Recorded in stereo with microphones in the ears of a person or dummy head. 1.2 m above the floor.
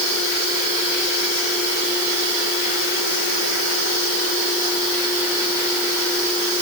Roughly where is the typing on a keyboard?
No typing on a keyboard in this recording.